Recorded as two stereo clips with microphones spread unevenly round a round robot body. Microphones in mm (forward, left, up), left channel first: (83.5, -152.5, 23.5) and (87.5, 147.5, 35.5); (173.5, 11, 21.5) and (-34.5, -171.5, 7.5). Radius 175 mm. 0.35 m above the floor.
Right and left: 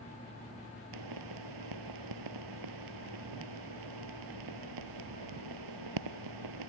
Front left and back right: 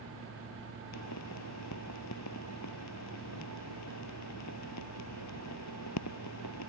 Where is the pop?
90° left.